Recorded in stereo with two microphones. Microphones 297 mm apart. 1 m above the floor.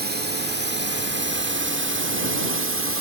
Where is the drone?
35° right (ahead or behind); by 3.0 s 50° right (ahead or behind).